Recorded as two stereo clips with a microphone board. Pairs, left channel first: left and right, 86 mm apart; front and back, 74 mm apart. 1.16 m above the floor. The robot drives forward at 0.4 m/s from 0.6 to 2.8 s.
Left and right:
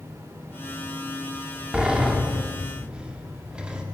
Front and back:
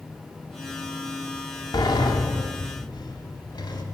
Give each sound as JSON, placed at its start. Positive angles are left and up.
{"t": 1.7, "sound": "a sliding door", "azimuth_deg": -10, "distance_m": 3.5}